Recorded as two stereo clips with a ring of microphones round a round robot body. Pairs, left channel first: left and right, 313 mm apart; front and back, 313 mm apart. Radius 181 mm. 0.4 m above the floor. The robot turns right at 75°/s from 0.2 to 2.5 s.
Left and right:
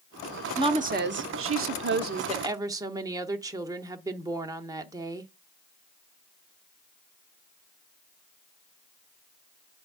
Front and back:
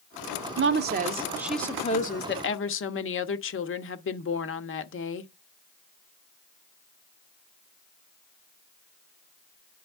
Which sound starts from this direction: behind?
A woman speaking, at 0.6 s.